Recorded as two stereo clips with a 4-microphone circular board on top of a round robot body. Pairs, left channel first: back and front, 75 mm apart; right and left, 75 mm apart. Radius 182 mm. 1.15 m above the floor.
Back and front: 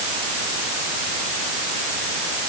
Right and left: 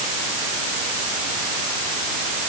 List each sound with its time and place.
Only background noise.